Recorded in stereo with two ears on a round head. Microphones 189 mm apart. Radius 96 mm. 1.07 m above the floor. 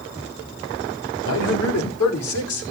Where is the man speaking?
80° left, 4 m; by 2.7 s 75° left (ahead or behind), 4 m.